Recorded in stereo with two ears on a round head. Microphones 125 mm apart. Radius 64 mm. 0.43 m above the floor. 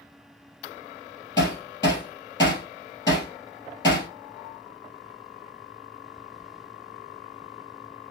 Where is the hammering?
30° left (ahead or behind), 3 m.